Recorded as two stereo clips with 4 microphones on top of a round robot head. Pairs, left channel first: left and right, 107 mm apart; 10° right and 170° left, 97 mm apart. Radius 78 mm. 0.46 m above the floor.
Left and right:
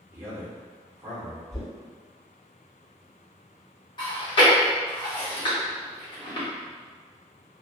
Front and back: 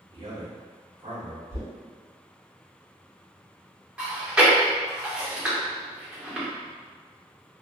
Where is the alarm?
No alarm in this recording.